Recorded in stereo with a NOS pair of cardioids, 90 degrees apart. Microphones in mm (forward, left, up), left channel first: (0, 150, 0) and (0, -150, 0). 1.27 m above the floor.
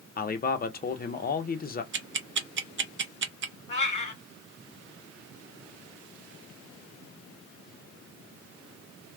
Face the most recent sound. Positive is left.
turn(degrees=25)